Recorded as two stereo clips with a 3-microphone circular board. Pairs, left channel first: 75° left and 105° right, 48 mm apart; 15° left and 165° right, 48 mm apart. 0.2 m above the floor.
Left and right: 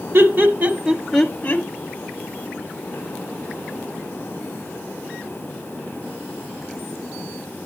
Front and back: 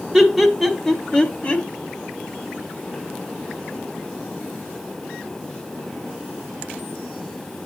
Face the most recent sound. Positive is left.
turn(degrees=60)